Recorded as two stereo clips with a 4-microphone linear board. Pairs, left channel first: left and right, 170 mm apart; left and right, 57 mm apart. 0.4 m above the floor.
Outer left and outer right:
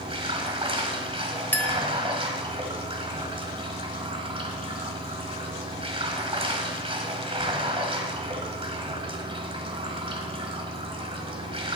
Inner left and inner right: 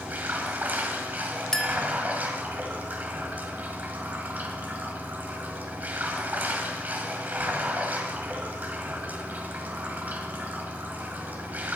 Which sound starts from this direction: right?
Running water, at 0.0 s.